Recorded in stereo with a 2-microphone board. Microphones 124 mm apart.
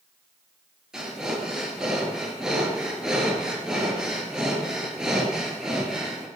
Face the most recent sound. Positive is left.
turn(degrees=-5)  # may be behind; listen again after turning